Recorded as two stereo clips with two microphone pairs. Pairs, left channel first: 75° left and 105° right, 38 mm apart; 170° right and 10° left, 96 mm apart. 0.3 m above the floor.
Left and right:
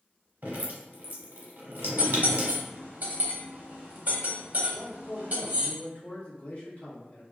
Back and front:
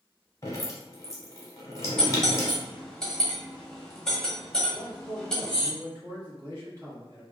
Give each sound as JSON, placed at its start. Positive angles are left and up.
{"t": 0.4, "sound": "dripping", "azimuth_deg": -120, "distance_m": 0.9}
{"t": 2.0, "sound": "cutlery clinking", "azimuth_deg": -90, "distance_m": 0.7}
{"t": 4.7, "sound": "a man speaking", "azimuth_deg": 40, "distance_m": 1.9}